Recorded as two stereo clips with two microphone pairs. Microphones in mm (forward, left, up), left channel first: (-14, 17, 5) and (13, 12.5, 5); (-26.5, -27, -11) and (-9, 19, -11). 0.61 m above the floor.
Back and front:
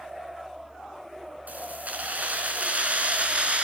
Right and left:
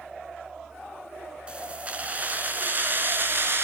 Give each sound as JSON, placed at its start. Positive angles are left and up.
{"t": 1.5, "sound": "keys jangling", "azimuth_deg": 0, "distance_m": 4.5}